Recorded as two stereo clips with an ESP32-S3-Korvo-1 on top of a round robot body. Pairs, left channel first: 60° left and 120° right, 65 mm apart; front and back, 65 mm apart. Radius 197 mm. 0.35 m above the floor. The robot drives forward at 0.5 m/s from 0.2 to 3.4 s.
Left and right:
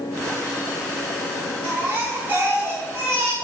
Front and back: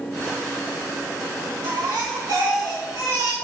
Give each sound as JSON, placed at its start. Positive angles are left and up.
{"t": 1.6, "sound": "a baby crying", "azimuth_deg": 180, "distance_m": 2.0}